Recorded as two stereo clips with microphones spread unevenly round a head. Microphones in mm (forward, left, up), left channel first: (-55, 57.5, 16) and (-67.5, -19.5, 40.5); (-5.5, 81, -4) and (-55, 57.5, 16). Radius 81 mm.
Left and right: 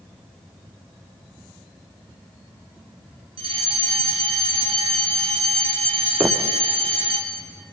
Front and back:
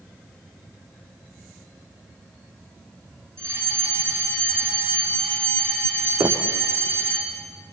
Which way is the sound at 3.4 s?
80° right.